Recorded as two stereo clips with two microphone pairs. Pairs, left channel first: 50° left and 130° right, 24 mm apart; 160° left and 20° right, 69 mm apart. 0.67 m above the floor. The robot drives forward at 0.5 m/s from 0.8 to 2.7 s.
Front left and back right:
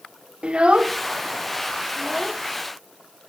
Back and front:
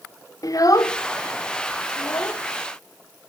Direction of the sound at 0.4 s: 170° right.